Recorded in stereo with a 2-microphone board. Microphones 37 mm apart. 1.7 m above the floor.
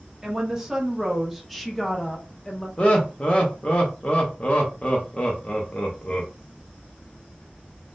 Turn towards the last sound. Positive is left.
turn(degrees=35)  # may be behind; listen again after turning